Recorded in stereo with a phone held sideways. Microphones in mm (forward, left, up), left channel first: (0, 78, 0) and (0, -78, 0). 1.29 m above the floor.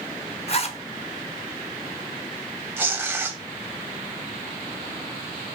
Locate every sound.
0.5 s a zipper: 40° left (ahead or behind), 0.6 m
2.8 s tearing paper: 15° right (ahead or behind), 0.5 m